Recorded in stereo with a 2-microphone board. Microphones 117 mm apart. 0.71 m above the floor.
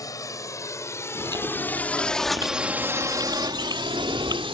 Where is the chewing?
35° right (ahead or behind).